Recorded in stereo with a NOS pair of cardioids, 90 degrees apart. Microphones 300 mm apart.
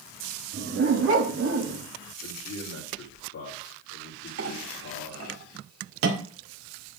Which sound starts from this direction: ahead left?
A man speaking, at 2.2 s.